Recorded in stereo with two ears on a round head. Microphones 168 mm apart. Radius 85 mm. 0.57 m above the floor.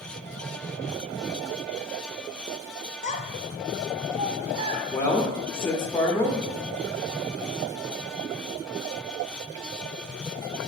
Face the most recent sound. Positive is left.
turn(degrees=10)  # may be behind; listen again after turning